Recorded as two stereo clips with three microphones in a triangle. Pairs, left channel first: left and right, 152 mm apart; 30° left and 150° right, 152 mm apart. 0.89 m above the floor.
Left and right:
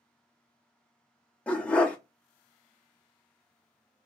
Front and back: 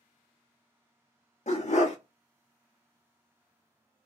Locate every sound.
1.5 s a dog barking: 10° left, 0.7 m